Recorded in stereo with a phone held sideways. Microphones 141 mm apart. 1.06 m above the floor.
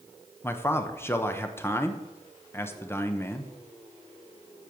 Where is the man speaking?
15° left (ahead or behind), 0.8 m.